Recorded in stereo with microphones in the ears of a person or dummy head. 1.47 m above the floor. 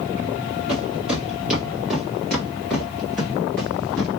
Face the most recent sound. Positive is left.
turn(degrees=10)  # may be behind; listen again after turning